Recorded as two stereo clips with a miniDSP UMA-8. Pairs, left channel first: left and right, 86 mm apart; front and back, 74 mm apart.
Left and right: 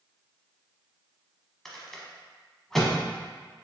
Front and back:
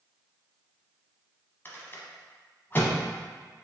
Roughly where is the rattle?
Ahead.